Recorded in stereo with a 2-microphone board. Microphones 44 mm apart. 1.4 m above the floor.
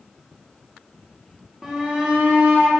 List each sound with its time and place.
1.6 s a shout: 15° right (ahead or behind), 1.7 m; by 2.8 s 50° right (ahead or behind), 2.5 m